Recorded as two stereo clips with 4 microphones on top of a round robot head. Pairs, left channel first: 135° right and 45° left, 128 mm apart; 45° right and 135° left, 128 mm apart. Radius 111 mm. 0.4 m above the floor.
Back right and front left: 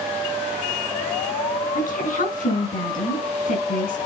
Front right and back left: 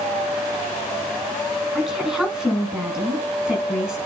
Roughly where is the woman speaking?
Behind right.